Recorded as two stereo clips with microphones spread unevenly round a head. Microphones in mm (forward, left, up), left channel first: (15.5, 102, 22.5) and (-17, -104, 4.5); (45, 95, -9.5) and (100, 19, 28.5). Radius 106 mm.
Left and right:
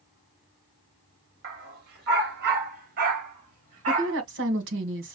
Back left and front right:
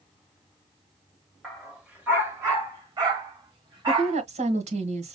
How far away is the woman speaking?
About 1.6 m.